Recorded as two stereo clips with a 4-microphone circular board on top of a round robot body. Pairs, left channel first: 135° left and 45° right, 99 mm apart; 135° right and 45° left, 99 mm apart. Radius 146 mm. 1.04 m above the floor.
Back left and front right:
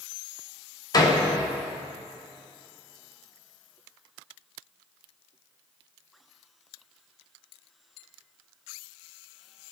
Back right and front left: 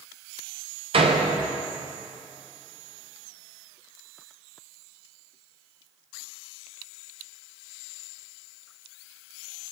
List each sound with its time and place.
0.9 s a door slam: 80° left, 0.8 m